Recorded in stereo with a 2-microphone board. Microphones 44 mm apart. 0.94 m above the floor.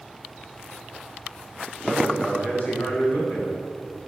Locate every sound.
1.9 s a man speaking: 35° left (ahead or behind), 4.5 m